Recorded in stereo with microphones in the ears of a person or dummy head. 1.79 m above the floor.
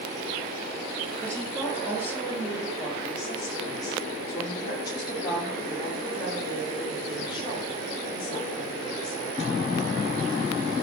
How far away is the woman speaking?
About 4 m.